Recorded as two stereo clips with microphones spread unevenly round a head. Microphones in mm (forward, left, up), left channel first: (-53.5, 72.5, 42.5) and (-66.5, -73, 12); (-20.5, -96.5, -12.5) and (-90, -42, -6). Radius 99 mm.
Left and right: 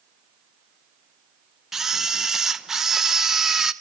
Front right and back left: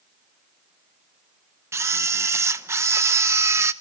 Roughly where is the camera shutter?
Behind.